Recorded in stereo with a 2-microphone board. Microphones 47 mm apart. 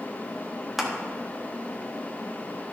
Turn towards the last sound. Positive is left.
turn(degrees=-5)  # may be behind; listen again after turning